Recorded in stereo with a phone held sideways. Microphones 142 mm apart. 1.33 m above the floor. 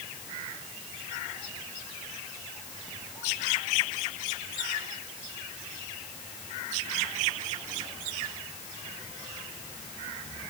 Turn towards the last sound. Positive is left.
No sound to turn to.